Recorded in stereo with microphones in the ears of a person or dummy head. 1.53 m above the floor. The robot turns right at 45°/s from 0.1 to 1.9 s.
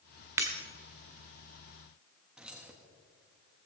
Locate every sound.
0.4 s breaking glass: 15° right (ahead or behind), 1.2 m
2.4 s keys jangling: 10° right (ahead or behind), 1.3 m